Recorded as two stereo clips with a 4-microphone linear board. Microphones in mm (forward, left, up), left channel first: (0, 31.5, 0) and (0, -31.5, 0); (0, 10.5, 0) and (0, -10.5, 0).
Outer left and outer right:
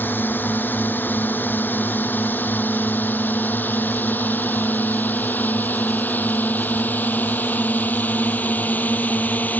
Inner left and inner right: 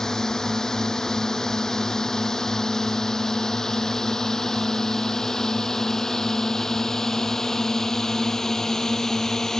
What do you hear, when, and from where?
0.0 s a drone: 30° left (ahead or behind); by 9.6 s 25° left (ahead or behind)